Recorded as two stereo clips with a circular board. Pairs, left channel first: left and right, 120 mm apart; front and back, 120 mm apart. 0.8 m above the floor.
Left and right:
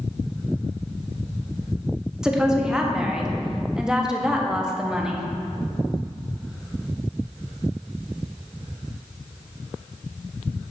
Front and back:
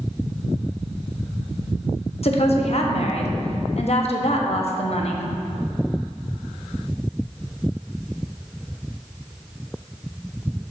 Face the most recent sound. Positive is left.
turn(degrees=-5)